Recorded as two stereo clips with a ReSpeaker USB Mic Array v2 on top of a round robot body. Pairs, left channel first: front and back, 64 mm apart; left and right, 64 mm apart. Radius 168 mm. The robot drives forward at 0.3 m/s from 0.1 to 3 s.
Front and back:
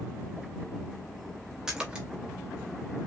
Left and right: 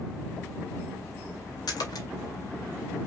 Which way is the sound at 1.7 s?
95° left.